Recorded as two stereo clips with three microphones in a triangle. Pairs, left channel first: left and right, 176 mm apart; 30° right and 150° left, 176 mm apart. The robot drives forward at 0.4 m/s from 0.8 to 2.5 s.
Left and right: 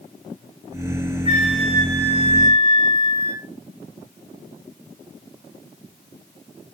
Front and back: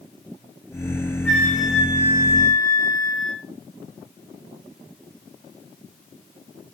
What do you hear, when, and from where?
1.2 s a flute: 110° right, 0.8 m; by 3.4 s 145° right, 1.1 m